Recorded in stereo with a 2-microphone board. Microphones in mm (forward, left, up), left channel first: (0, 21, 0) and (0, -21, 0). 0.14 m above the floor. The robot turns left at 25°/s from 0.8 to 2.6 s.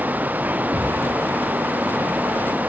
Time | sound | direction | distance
0.7 | a cupboard door | 65° right (ahead or behind) | 7.5 m